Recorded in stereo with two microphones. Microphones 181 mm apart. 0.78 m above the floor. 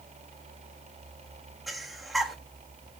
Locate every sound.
1.7 s breathing: centre (ahead or behind), 1.4 m